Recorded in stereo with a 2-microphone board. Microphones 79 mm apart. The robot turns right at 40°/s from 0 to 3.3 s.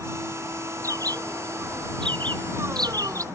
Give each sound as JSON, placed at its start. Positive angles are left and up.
{"t": 0.8, "sound": "a bird", "side_deg": -40}